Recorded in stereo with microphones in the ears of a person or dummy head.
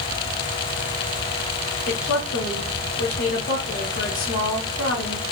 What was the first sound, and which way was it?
A woman speaking, 50° left (ahead or behind).